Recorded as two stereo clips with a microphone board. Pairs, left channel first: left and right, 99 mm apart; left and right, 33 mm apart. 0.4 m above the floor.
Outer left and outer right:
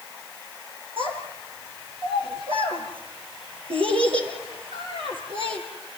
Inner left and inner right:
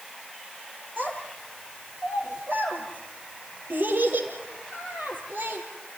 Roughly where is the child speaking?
Right.